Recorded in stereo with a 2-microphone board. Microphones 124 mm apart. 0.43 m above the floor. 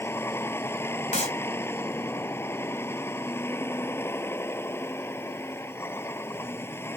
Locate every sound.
0.0 s a vehicle: 20° left (ahead or behind)
1.1 s a clap: 70° left (ahead or behind)